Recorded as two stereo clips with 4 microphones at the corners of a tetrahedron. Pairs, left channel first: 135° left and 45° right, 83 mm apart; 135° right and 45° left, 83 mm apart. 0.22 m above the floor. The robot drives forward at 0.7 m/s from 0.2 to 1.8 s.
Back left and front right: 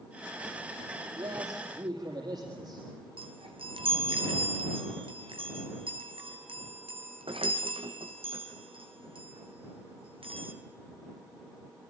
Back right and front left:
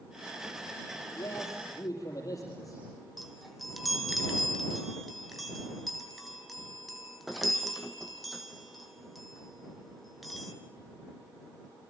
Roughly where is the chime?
Ahead right.